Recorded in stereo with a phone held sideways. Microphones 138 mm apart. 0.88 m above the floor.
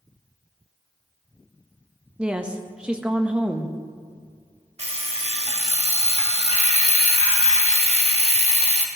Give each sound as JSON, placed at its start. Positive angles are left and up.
{"t": 2.2, "sound": "a woman speaking", "side_deg": -10, "distance_m": 0.9}
{"t": 4.8, "sound": "an alarm clock", "side_deg": -50, "distance_m": 1.2}